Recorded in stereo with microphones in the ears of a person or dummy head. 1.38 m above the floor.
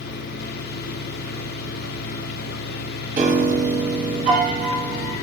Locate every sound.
0.0 s a fan: 55° left (ahead or behind), 1.4 m
3.2 s a piano: 40° right (ahead or behind), 2 m